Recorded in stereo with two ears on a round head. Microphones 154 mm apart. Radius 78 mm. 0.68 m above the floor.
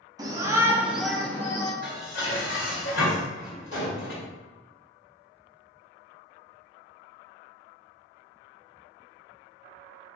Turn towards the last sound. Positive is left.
turn(degrees=75)  # may be behind; listen again after turning